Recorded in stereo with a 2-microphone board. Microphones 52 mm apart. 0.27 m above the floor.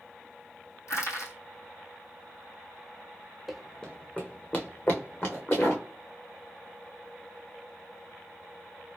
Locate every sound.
0.9 s crushing: 80° left, 1.7 m
3.5 s running footsteps: 5° right (ahead or behind), 0.6 m; by 5.8 s 50° left (ahead or behind), 1.8 m